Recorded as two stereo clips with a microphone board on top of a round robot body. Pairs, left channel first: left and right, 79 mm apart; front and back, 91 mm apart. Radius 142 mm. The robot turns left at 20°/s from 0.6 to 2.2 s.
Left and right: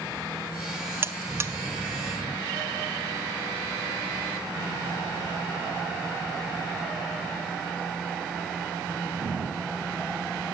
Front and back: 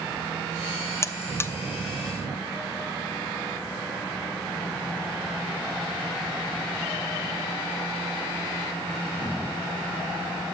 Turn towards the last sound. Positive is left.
turn(degrees=-65)